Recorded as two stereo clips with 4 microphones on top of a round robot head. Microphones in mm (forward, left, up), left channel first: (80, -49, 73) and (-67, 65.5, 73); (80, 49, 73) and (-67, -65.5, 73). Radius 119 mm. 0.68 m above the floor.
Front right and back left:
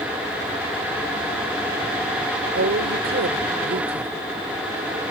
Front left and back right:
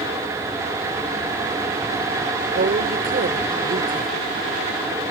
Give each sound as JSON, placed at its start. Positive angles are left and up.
{"t": 2.5, "sound": "a woman speaking", "azimuth_deg": 175}